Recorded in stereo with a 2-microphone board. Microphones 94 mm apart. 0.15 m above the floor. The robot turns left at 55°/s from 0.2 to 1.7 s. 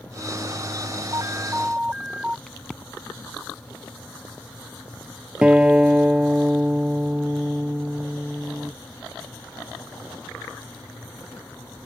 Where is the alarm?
140° right; by 2.4 s 175° right.